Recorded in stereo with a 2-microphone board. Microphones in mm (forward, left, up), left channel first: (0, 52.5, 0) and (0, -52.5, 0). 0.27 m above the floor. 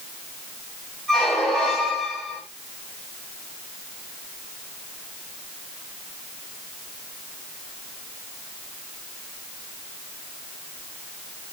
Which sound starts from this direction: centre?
A squeak, at 1.1 s.